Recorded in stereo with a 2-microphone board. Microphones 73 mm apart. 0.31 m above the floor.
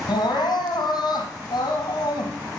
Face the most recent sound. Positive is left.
turn(degrees=75)  # may be behind; listen again after turning